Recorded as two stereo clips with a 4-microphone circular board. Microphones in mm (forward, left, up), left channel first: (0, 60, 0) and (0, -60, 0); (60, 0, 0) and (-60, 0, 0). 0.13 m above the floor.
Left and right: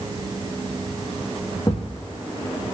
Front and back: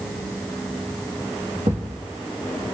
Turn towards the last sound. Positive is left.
turn(degrees=150)